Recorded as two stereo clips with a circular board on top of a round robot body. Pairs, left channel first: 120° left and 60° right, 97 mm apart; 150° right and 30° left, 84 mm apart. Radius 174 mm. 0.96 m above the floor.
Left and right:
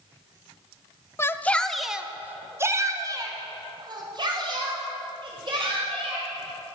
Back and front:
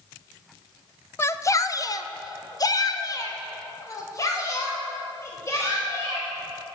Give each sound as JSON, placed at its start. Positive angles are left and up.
{"t": 1.2, "sound": "a shout", "azimuth_deg": 170, "distance_m": 0.9}